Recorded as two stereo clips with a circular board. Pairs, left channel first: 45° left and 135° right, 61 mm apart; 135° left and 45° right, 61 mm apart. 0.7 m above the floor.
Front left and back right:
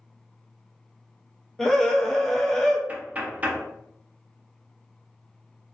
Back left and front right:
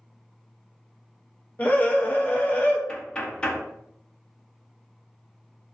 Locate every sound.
1.6 s a scream: 120° left, 0.6 m
2.9 s knocking: 170° right, 0.5 m